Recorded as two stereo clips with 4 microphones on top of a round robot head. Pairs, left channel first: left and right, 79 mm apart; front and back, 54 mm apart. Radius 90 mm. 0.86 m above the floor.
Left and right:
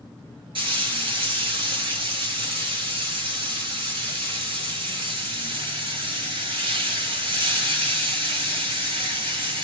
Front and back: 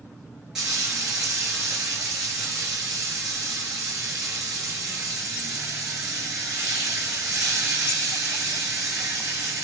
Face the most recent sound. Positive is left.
turn(degrees=-100)